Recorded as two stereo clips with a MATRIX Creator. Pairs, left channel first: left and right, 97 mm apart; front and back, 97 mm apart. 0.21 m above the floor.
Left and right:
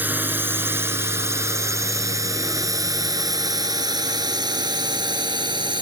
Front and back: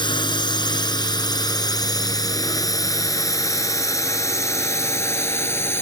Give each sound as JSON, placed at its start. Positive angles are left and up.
{"t": 0.0, "sound": "a drone", "azimuth_deg": -25}